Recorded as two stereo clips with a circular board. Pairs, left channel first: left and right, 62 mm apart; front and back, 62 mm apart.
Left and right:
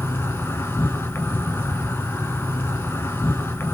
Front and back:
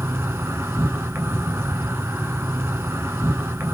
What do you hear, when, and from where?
0.0 s an insect: 135° left, 0.9 m